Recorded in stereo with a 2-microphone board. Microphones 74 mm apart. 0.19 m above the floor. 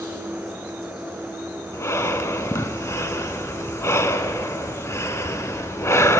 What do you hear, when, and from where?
0.0 s an insect: 70° left (ahead or behind), 8.5 m
1.7 s breathing: 40° left (ahead or behind), 0.8 m